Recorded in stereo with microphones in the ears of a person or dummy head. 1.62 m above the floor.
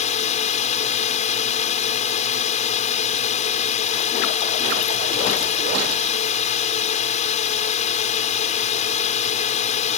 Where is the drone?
45° left (ahead or behind).